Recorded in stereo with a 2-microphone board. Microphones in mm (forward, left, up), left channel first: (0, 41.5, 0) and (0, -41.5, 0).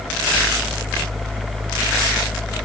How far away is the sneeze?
I don't hear a sneeze.